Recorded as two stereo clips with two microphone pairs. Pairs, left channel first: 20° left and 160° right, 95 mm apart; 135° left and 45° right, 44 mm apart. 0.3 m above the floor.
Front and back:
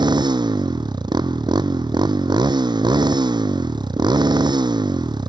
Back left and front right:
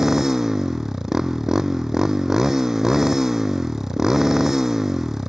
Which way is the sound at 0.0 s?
120° right.